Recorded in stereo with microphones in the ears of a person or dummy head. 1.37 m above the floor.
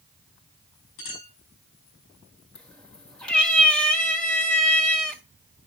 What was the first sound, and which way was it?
A clink, 65° left (ahead or behind).